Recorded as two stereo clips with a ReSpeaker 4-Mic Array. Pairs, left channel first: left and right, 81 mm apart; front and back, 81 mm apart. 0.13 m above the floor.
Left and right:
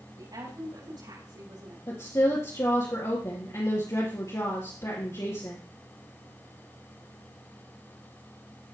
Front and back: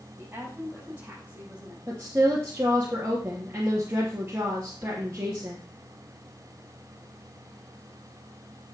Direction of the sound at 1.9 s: 120° left.